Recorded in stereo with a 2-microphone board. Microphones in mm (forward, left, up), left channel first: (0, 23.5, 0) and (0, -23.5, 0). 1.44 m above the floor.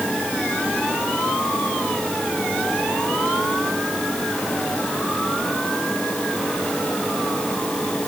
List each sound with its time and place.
Only background noise.